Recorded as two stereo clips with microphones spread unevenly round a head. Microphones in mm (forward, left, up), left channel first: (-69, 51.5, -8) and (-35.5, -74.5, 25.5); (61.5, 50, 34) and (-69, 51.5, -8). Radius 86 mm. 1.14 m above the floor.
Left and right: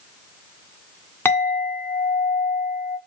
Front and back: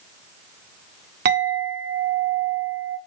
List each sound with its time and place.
1.2 s a clink: straight behind, 1.4 m